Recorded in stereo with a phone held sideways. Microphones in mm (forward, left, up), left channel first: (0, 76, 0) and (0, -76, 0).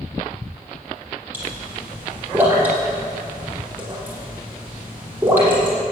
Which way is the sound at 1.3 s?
15° right (ahead or behind).